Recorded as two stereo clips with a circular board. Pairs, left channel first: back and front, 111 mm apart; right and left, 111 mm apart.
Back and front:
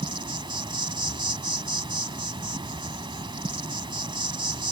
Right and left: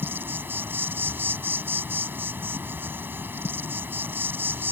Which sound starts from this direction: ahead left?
An insect, at 0.0 s.